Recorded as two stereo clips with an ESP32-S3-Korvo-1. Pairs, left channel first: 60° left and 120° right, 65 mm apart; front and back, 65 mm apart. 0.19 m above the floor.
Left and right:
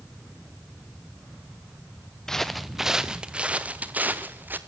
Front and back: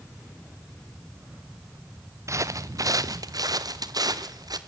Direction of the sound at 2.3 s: 140° left.